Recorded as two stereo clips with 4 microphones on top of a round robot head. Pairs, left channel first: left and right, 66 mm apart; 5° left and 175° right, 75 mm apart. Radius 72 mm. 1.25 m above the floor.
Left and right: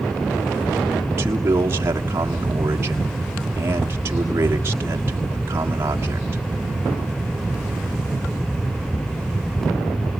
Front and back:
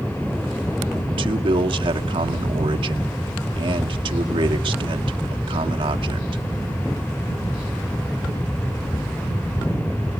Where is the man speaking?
155° right, 1.5 m.